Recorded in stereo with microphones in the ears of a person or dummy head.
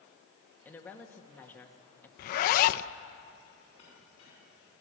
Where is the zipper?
50° left (ahead or behind), 0.6 m.